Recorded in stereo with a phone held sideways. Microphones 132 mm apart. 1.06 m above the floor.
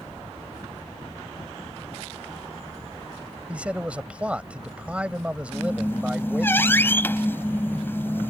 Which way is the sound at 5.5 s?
20° left (ahead or behind).